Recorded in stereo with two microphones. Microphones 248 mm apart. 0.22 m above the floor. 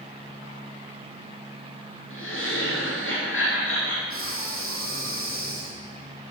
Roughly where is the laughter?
Left.